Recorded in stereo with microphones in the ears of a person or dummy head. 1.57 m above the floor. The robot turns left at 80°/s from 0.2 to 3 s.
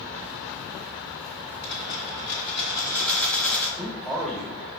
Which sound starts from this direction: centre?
A man speaking, at 3.8 s.